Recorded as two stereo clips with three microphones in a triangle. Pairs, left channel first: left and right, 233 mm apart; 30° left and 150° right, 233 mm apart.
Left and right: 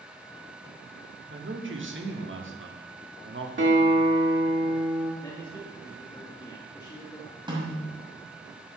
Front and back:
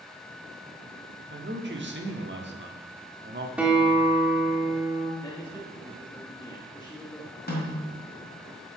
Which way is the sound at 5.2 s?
60° left.